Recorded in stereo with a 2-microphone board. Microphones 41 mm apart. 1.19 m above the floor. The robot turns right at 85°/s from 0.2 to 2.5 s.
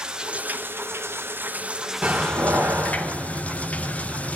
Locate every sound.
0.0 s running water: 160° right, 0.9 m; by 4.4 s 35° left, 0.9 m
2.0 s a door slam: 150° right, 2 m; by 4.4 s 110° right, 2 m